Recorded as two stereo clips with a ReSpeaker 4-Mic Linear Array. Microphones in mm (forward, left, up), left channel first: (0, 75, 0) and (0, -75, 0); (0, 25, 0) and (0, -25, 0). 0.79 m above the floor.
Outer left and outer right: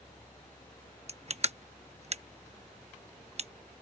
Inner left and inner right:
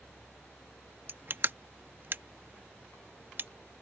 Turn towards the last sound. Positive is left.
turn(degrees=-45)  # may be behind; listen again after turning